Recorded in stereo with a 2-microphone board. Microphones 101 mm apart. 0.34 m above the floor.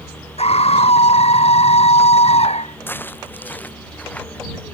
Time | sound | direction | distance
0.4 | a scream | 80° left | ?
2.9 | footsteps | 20° left (ahead or behind) | ?